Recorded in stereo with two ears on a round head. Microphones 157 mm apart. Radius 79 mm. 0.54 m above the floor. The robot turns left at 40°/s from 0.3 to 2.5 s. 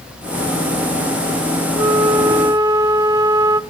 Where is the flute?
20° right (ahead or behind), 1.0 m.